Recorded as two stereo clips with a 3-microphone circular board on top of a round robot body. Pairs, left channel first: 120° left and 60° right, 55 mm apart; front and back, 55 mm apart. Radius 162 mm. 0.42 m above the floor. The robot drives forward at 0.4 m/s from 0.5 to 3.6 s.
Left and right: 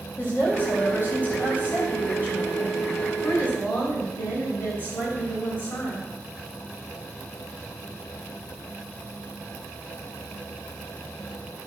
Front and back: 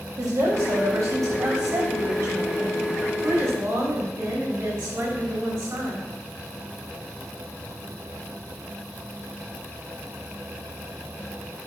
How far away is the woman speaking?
About 4 m.